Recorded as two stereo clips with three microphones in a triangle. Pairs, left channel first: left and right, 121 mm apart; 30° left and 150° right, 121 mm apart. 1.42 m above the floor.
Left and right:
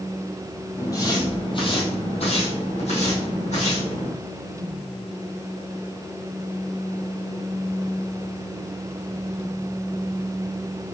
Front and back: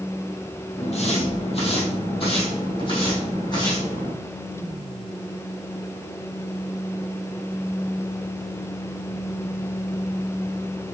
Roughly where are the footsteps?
Ahead left.